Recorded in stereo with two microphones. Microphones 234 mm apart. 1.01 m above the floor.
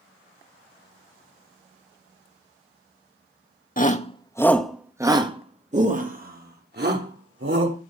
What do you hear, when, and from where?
3.8 s a shout: 35° left (ahead or behind), 1.7 m; by 7.8 s 50° right (ahead or behind), 4.5 m